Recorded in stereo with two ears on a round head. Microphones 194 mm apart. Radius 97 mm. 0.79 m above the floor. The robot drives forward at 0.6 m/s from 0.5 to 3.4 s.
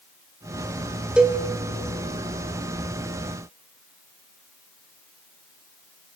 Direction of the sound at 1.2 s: 5° right (ahead or behind).